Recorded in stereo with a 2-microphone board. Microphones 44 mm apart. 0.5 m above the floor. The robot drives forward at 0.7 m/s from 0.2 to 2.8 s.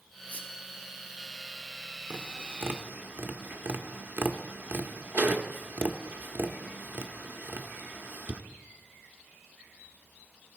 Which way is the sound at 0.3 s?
35° left (ahead or behind).